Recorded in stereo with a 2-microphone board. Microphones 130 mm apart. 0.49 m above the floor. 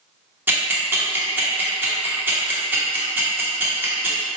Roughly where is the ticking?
Centre.